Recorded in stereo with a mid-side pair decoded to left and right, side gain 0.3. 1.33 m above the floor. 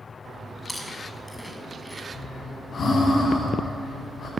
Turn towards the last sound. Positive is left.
turn(degrees=65)